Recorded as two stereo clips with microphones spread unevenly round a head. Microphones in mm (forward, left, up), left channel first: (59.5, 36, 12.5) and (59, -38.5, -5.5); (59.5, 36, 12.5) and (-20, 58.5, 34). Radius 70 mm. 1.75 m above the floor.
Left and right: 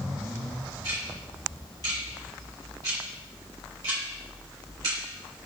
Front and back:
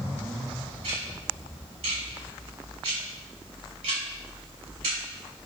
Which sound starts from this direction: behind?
Ticking, at 0.8 s.